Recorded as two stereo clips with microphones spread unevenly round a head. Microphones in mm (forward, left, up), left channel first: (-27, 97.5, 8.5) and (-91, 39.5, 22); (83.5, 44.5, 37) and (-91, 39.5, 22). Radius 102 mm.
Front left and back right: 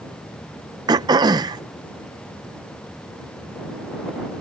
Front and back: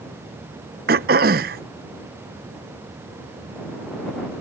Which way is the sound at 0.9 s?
135° right.